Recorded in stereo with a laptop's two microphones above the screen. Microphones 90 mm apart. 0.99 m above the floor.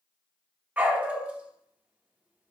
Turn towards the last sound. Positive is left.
turn(degrees=-20)  # may be behind; listen again after turning